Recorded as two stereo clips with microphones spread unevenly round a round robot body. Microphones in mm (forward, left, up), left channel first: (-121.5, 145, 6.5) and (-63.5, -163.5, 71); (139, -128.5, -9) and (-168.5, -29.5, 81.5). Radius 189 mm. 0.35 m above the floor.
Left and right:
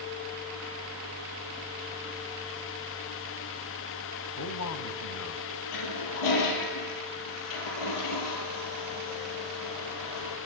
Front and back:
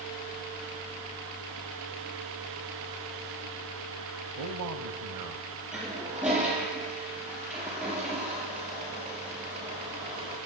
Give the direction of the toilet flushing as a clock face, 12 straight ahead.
10 o'clock.